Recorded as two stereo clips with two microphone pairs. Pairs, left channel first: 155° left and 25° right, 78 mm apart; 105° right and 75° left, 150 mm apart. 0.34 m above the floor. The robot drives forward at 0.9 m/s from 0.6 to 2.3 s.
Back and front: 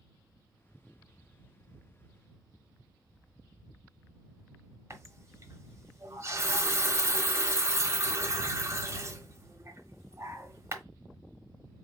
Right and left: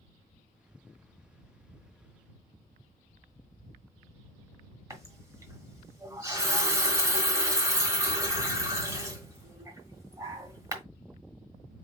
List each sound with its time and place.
4.9 s a running tap: 15° left, 1.2 m